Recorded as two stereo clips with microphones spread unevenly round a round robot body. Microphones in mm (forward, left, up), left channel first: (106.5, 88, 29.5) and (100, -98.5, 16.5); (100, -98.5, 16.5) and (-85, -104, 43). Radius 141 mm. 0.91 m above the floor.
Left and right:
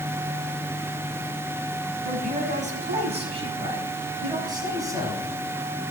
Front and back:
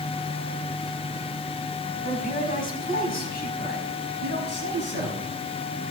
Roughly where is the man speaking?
Ahead right.